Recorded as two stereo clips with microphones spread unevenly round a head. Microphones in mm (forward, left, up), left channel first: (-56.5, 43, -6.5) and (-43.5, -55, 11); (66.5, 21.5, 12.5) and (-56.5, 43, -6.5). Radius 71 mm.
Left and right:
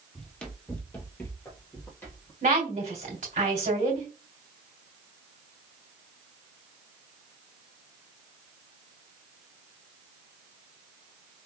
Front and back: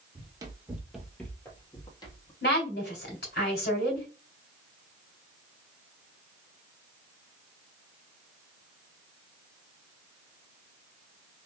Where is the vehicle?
No vehicle in this recording.